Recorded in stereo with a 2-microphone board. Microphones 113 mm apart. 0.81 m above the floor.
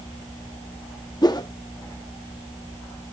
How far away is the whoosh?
About 0.6 m.